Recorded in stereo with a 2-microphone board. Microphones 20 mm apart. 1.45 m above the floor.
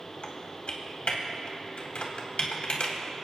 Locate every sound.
0.2 s typing on a keyboard: 65° left (ahead or behind), 3 m